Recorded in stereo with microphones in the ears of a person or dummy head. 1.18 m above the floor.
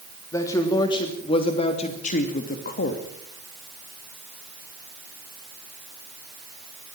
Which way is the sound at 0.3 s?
15° left (ahead or behind).